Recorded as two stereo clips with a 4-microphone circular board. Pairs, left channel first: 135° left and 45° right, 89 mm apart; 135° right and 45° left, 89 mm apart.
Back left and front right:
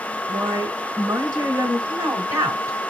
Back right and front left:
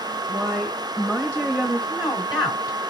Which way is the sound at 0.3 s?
65° right.